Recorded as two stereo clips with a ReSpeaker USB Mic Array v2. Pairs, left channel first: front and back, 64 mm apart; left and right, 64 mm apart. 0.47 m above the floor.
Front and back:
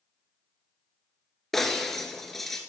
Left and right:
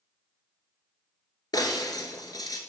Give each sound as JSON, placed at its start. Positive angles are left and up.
{"t": 1.5, "sound": "breaking glass", "azimuth_deg": 85, "distance_m": 1.1}